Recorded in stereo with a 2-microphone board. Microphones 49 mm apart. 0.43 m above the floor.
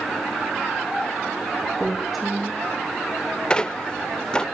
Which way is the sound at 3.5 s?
15° left (ahead or behind).